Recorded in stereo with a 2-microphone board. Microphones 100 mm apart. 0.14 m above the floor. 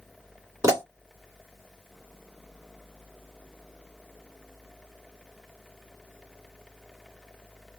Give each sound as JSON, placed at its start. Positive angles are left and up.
{"t": 0.6, "sound": "a pop", "side_deg": -30, "distance_m": 1.7}